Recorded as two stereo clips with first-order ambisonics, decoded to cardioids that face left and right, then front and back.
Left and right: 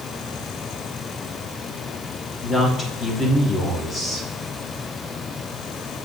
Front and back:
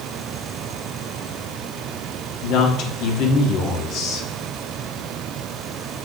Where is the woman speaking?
20° left, 1.3 m.